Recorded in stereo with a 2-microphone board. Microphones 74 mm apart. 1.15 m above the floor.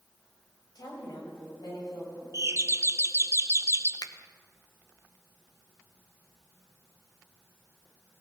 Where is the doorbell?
40° right (ahead or behind), 0.8 m.